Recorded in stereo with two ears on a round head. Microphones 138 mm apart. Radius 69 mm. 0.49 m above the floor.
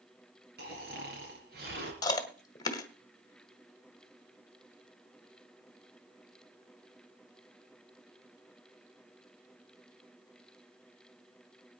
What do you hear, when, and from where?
0.6 s snoring: 70° right (ahead or behind), 4.5 m
2.0 s chewing: 25° left (ahead or behind), 1.6 m